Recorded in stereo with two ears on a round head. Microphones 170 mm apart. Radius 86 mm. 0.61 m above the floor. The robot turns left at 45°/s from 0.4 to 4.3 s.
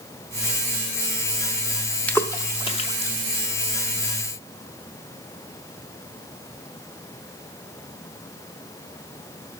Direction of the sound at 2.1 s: 10° left (ahead or behind).